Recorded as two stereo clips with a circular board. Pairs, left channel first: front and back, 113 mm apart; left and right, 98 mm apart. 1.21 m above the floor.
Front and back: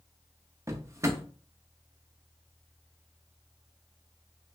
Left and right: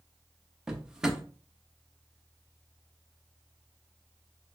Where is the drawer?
165° right, 0.5 m.